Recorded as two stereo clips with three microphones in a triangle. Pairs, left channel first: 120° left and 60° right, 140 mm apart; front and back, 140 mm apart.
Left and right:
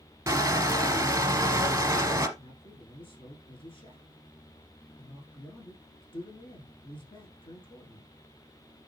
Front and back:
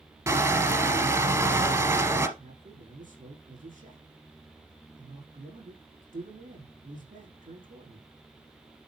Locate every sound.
0.3 s crushing: 120° right, 1.5 m
2.4 s a man speaking: 170° left, 7.5 m